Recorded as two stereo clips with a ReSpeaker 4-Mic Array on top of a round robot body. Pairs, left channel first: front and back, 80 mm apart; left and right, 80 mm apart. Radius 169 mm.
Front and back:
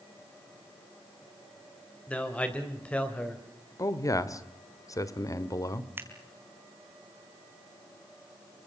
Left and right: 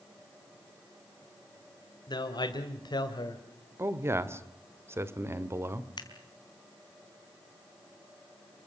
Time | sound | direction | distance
2.1 | a man speaking | 75° left | 2.5 m
3.8 | a man speaking | 35° right | 1.9 m
6.0 | scissors | 115° left | 4 m